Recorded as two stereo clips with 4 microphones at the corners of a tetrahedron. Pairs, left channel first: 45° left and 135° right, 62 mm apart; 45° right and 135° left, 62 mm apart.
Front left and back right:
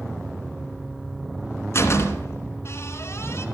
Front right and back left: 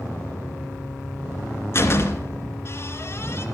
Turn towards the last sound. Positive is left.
turn(degrees=0)